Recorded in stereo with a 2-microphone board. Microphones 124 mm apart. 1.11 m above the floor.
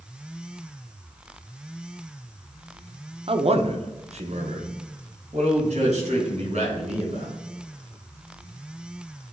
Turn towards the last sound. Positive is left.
turn(degrees=-65)  # may be behind; listen again after turning